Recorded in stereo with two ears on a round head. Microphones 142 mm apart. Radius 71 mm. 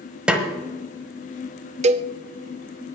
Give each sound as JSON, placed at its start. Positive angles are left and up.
{"t": 0.3, "sound": "a snare drum", "side_deg": -5, "distance_m": 1.3}
{"t": 1.8, "sound": "a cowbell", "side_deg": -45, "distance_m": 0.6}